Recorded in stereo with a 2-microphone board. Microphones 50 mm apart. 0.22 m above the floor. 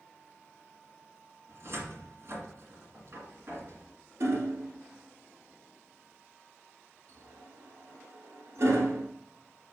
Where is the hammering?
65° right (ahead or behind), 1.4 m.